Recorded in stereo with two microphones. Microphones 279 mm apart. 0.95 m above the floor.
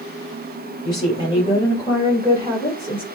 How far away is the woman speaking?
About 5.5 m.